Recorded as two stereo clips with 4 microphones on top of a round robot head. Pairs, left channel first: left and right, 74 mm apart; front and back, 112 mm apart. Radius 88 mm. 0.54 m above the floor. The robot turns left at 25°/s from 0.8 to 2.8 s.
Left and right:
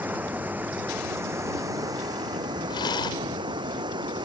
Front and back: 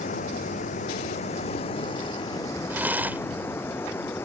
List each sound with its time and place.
0.0 s running water: 25° right; by 4.2 s 75° right
2.7 s a rattle: 110° left; by 4.2 s 105° left